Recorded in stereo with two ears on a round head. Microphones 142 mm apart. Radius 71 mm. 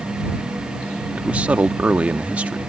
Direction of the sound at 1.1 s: 10° right (ahead or behind).